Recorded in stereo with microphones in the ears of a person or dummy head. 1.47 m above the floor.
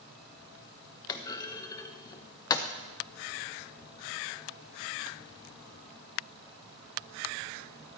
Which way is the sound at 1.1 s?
20° left (ahead or behind).